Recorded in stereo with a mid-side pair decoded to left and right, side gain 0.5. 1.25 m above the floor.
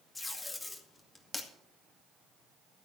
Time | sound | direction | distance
0.1 | tape being pulled | 20° left | 2 m